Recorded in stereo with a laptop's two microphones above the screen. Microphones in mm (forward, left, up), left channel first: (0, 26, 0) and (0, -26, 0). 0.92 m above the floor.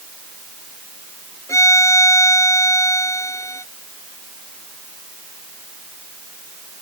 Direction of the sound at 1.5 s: 90° left.